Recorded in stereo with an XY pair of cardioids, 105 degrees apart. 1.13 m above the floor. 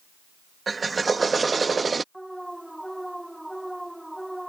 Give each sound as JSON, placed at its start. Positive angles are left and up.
{"t": 0.7, "sound": "a drill", "azimuth_deg": -30}
{"t": 2.1, "sound": "an alarm", "azimuth_deg": -5}